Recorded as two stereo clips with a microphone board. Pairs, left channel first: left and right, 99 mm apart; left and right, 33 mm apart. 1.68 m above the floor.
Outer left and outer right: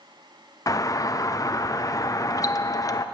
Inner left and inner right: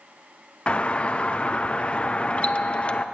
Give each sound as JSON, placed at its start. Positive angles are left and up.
{"t": 0.7, "sound": "a doorbell", "side_deg": 35, "distance_m": 0.9}